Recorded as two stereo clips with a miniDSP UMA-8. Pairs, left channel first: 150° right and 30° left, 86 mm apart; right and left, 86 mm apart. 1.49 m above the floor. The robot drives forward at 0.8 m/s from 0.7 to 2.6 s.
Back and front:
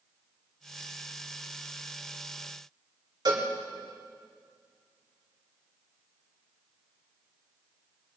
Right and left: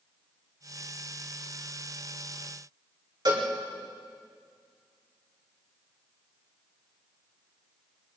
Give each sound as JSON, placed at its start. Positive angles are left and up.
{"t": 3.2, "sound": "a cowbell", "azimuth_deg": 60, "distance_m": 4.5}